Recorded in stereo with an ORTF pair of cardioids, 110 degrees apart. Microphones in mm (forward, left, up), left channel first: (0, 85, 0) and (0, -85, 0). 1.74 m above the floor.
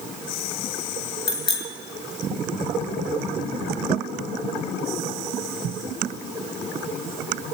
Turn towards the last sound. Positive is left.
turn(degrees=30)